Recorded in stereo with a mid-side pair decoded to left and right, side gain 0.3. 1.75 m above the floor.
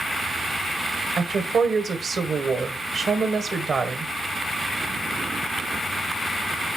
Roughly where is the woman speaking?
Right.